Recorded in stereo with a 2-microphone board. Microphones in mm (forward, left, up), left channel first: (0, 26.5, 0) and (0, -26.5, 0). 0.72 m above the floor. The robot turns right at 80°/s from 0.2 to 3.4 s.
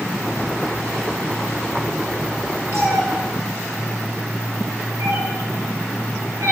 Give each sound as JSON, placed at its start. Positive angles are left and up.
{"t": 2.7, "sound": "a cat meowing", "side_deg": -55, "distance_m": 4.5}